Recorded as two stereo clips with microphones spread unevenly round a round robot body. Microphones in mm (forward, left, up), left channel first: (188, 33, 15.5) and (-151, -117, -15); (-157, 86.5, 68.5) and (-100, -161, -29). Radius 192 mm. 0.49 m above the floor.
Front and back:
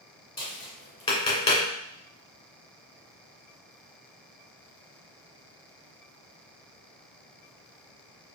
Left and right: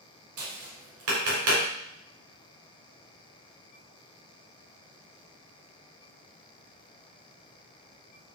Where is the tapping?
50° right, 2 m.